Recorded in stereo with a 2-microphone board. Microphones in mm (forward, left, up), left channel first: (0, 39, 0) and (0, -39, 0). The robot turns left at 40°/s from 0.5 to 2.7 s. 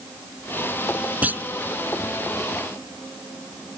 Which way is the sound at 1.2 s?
20° right (ahead or behind).